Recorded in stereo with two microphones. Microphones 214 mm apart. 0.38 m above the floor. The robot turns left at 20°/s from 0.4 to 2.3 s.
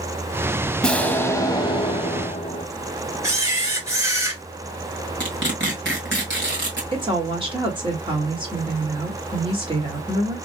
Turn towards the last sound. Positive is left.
turn(degrees=-25)  # may be behind; listen again after turning